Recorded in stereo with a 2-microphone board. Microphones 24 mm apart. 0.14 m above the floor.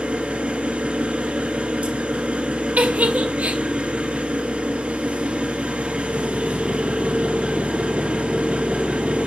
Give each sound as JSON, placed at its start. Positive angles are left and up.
{"t": 0.0, "sound": "an engine running", "side_deg": -65, "distance_m": 3.5}
{"t": 2.8, "sound": "a giggle", "side_deg": -75, "distance_m": 1.2}